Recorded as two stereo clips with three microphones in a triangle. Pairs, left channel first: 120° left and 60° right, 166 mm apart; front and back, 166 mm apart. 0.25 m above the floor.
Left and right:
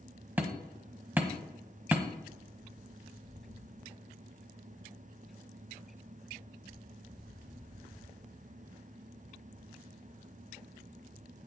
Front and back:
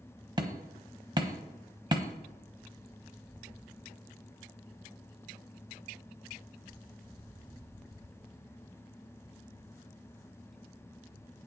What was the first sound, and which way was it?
Hammering, 135° right.